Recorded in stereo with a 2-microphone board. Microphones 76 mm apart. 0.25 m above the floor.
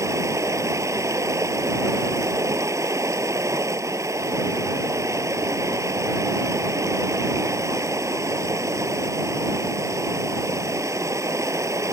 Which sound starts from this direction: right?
Running water, at 0.0 s.